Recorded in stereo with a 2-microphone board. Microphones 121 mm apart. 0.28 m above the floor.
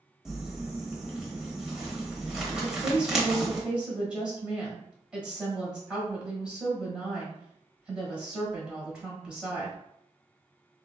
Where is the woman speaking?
10° right (ahead or behind), 1.1 m.